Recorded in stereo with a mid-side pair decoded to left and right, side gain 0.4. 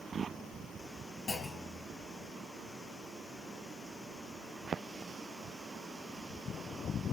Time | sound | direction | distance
1.3 | a clunk | 40° left | 4 m